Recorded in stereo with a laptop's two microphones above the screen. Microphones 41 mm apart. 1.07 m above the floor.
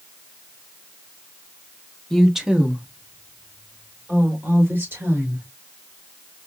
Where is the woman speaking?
10° left (ahead or behind), 0.8 m; by 5.5 s 70° right (ahead or behind), 3.5 m.